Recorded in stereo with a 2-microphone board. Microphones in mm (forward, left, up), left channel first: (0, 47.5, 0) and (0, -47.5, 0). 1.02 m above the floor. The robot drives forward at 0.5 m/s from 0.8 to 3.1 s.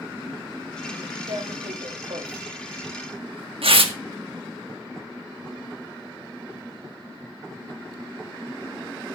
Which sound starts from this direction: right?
Tearing paper, at 1.3 s.